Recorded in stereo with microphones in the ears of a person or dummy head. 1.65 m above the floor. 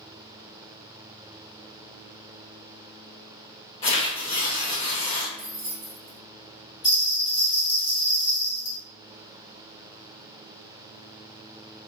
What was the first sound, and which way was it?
Tearing paper, 30° left (ahead or behind).